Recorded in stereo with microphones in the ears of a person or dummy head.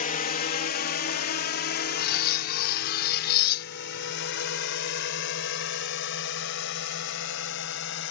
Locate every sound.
0.0 s a drone: 50° left (ahead or behind); by 8.1 s 75° left (ahead or behind)
2.0 s cutlery clinking: 50° left (ahead or behind)